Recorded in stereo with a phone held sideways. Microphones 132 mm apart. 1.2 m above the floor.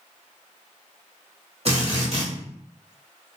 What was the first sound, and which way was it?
A drill, 50° right (ahead or behind).